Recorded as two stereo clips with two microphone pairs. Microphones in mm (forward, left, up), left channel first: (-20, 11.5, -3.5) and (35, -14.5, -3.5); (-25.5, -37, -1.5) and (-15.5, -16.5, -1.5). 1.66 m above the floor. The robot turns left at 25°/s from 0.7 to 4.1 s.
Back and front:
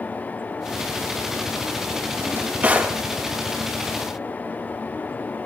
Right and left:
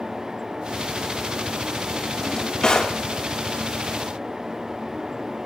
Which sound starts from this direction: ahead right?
A drawer, at 2.2 s.